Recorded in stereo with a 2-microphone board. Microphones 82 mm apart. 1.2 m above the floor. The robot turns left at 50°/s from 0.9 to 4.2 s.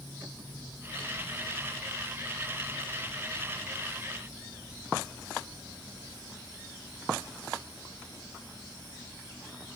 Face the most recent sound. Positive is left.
No sound to turn to.